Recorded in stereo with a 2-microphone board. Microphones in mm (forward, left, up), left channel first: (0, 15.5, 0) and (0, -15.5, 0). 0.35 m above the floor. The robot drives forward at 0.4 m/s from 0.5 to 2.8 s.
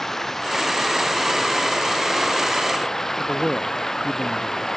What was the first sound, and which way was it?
Running water, 10° left (ahead or behind).